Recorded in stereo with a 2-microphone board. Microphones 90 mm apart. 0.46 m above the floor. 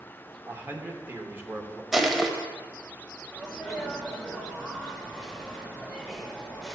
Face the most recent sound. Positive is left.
turn(degrees=0)  # may be behind; listen again after turning